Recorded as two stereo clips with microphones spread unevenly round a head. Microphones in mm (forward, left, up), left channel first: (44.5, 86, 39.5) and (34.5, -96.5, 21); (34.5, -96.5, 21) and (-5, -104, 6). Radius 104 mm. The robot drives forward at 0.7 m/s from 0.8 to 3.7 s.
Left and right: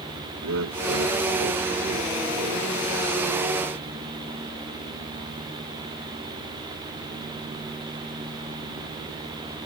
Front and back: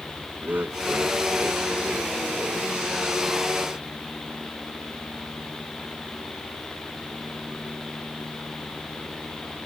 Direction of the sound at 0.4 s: 120° right.